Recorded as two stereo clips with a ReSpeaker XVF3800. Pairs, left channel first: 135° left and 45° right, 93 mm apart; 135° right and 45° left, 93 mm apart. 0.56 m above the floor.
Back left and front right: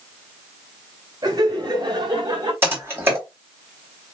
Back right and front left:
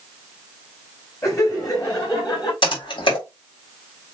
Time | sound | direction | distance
1.2 | laughter | 85° right | 2.5 m
2.6 | typing on a keyboard | 110° right | 3 m